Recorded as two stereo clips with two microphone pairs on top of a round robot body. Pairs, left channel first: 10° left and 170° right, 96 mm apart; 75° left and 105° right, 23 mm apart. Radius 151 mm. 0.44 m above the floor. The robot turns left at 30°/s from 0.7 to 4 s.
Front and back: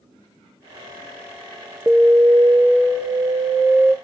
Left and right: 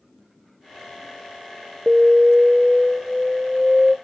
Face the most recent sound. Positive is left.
turn(degrees=150)